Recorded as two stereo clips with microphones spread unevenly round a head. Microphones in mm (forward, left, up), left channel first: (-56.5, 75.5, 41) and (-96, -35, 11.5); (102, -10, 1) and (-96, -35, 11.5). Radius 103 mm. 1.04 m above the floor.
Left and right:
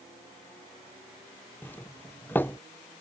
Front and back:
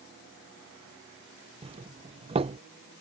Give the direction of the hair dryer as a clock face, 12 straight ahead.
I don't hear a hair dryer.